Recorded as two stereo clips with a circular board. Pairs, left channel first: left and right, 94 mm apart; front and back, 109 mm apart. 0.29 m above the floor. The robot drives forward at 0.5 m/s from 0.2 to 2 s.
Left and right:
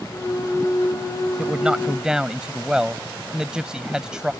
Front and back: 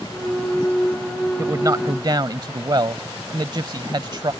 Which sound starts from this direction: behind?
A man speaking, at 1.4 s.